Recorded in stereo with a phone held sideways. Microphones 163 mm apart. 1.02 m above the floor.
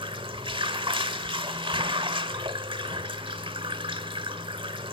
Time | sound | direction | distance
0.0 | running water | 30° right (ahead or behind) | 1.1 m